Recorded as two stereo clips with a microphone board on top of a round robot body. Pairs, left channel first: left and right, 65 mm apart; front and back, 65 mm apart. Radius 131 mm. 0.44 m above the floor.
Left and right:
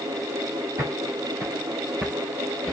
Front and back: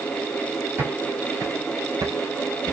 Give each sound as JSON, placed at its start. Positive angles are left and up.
{"t": 0.8, "sound": "footsteps", "azimuth_deg": -130, "distance_m": 1.4}